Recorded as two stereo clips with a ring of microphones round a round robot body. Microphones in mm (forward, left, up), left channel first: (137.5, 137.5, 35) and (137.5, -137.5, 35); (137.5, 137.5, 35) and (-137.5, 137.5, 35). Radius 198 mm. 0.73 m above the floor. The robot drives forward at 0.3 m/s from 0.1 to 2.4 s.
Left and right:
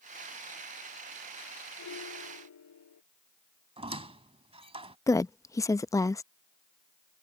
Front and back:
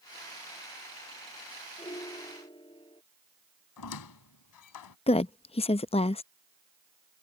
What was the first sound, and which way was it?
A piano, 70° left.